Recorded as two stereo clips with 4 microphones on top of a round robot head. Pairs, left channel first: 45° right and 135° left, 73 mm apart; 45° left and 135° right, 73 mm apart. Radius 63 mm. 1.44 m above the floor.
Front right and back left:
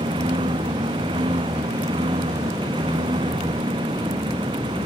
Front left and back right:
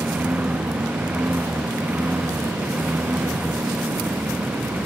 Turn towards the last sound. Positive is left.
turn(degrees=150)